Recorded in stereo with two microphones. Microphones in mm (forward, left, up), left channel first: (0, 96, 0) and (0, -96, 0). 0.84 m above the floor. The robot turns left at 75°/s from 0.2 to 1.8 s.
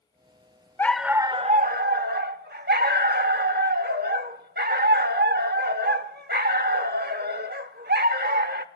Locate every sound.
0.8 s a dog barking: 15° left, 0.9 m; by 8.7 s 65° right, 0.9 m